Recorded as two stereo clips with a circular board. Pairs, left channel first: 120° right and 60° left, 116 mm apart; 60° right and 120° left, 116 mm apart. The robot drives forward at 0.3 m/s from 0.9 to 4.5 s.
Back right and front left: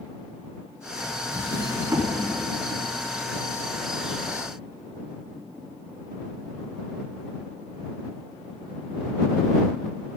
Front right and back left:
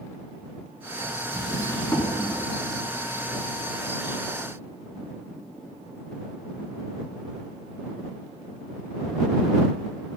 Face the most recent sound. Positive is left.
turn(degrees=-15)